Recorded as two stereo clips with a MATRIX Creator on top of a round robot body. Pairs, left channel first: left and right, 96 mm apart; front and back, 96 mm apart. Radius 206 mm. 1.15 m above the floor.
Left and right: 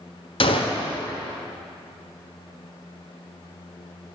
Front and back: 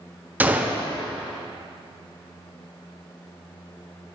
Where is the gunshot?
110° left, 1.1 m.